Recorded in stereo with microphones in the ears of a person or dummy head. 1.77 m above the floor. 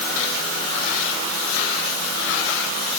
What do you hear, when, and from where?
Only background noise.